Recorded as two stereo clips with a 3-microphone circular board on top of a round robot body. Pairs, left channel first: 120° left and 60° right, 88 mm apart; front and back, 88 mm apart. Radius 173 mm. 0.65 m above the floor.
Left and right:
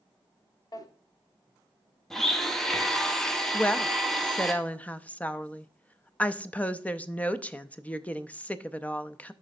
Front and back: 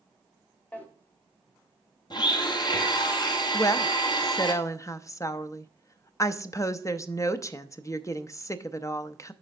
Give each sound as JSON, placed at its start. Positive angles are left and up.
{"t": 0.7, "sound": "a drawer", "azimuth_deg": 75, "distance_m": 1.2}
{"t": 2.1, "sound": "a blender", "azimuth_deg": 35, "distance_m": 1.2}
{"t": 3.5, "sound": "a woman speaking", "azimuth_deg": 50, "distance_m": 0.7}